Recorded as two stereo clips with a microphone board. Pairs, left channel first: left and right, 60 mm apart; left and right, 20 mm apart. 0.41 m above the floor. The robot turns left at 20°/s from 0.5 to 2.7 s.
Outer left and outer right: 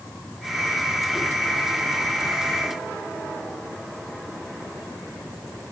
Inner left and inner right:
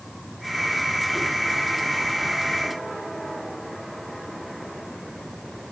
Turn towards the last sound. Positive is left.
No sound to turn to.